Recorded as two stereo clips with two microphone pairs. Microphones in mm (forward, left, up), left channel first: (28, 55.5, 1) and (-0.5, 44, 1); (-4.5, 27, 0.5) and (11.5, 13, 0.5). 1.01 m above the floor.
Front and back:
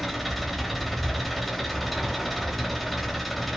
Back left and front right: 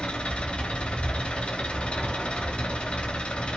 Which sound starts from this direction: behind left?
An engine running, at 0.0 s.